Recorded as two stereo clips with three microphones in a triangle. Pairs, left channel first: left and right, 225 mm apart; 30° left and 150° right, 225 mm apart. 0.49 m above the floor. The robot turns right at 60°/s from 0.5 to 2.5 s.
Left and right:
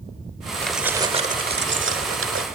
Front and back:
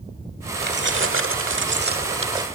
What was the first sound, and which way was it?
Keys jangling, 175° left.